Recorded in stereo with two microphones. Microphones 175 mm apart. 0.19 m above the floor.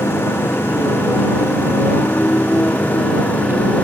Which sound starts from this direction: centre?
A motorcycle, at 0.0 s.